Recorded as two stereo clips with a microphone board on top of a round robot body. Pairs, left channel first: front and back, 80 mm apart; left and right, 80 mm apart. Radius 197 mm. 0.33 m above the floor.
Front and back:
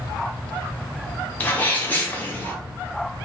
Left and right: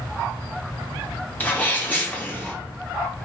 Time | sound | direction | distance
1.4 | a sneeze | 45° left | 1.0 m